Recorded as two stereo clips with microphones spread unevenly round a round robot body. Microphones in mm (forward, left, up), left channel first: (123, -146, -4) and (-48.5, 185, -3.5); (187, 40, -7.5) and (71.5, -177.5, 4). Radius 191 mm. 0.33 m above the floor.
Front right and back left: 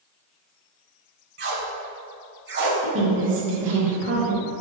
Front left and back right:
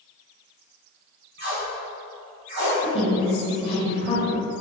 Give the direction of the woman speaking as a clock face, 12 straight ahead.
9 o'clock.